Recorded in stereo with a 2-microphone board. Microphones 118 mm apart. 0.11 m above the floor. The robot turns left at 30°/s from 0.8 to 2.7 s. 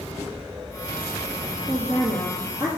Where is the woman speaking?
55° right, 3 m; by 2.7 s 85° right, 3 m.